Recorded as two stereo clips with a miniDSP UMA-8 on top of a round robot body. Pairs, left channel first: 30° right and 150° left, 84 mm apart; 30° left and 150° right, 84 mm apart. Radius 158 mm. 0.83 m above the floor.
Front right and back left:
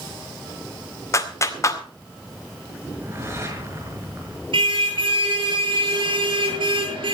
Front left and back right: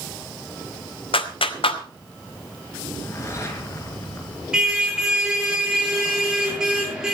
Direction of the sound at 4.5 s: 125° left.